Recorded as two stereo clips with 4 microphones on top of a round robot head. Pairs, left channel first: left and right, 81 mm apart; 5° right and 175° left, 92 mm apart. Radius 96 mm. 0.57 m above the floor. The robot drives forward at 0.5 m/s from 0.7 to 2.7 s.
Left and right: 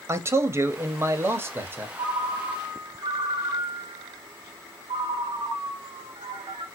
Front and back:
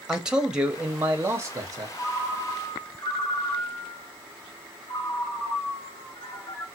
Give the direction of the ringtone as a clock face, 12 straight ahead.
2 o'clock.